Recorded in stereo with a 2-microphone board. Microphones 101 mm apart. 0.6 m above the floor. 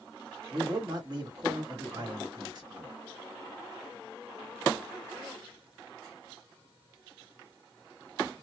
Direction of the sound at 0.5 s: 50° right (ahead or behind).